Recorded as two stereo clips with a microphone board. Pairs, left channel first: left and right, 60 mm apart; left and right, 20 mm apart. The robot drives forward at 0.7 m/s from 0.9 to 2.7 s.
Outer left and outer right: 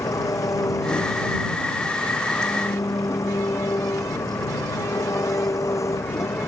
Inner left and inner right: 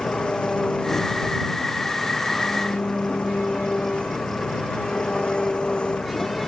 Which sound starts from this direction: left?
An engine running, at 0.0 s.